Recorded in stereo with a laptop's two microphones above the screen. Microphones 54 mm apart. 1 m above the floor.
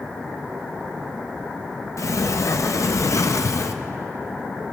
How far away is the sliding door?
About 0.5 m.